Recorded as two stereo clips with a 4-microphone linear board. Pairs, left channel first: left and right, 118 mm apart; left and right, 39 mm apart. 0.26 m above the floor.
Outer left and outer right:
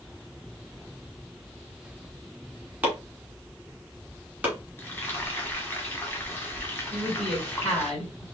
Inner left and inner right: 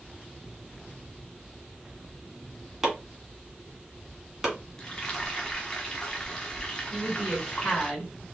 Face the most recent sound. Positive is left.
turn(degrees=5)  # may be behind; listen again after turning